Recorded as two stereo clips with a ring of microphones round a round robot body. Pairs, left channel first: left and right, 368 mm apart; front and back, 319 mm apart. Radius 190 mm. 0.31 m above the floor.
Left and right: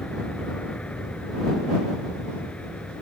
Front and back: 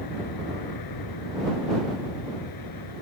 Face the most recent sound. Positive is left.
turn(degrees=5)